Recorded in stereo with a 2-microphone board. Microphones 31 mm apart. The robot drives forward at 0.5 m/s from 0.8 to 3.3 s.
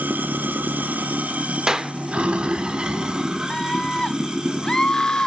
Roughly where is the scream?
Left.